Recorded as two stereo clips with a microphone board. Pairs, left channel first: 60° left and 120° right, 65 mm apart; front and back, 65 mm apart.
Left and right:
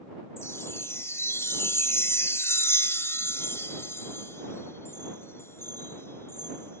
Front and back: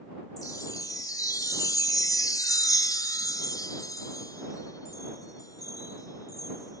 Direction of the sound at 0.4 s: 15° left.